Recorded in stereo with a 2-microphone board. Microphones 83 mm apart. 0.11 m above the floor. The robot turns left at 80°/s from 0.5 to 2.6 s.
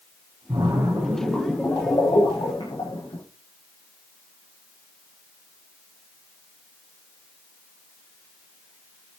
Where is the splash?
110° right, 8.5 m; by 3.2 s 80° left, 8.5 m.